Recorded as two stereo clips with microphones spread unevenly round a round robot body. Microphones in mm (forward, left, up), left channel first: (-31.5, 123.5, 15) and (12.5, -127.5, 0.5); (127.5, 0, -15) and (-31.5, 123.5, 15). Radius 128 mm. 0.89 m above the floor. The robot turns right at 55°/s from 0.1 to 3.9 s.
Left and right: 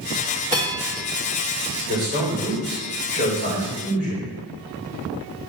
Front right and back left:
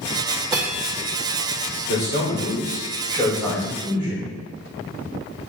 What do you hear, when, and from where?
0.5 s a bell: 140° right, 1.5 m; by 1.1 s 110° right, 1.5 m
1.9 s a man speaking: 30° right, 3 m; by 4.3 s 80° left, 3 m